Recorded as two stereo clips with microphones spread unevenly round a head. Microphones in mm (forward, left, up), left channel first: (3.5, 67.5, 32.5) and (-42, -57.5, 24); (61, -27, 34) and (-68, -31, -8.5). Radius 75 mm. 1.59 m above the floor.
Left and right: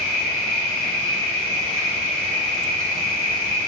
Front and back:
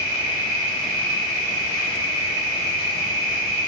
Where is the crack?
No crack in this recording.